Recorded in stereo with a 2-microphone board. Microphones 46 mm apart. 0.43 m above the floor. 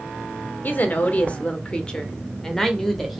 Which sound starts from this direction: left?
A woman speaking, at 0.6 s.